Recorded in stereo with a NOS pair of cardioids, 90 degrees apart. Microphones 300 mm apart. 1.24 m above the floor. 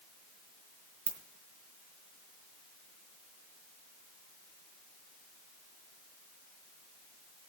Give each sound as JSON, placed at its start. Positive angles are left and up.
{"t": 1.1, "sound": "a ringtone", "azimuth_deg": -65, "distance_m": 3.0}